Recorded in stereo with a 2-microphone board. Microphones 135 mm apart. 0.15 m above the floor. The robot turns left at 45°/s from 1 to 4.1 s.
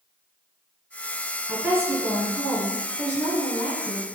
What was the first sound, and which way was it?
A woman speaking, 15° right (ahead or behind).